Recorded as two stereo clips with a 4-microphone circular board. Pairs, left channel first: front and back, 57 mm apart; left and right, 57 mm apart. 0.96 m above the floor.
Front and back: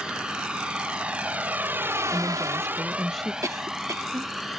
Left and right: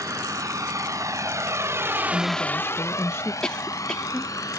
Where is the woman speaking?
90° left.